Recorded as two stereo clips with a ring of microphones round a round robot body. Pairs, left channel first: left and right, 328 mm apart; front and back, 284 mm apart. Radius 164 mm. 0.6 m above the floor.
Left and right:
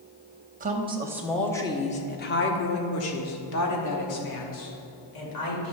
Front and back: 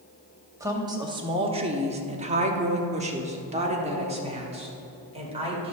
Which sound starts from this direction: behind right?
A woman speaking, at 0.6 s.